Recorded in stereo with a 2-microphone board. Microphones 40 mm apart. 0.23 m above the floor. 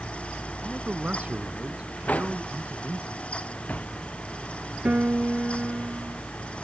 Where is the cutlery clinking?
40° left (ahead or behind).